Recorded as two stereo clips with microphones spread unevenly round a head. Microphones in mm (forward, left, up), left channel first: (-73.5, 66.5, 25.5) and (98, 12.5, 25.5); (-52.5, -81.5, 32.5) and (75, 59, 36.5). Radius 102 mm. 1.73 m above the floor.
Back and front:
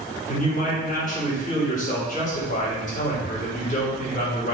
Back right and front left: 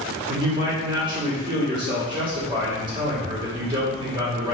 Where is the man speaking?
115° left, 1.9 m.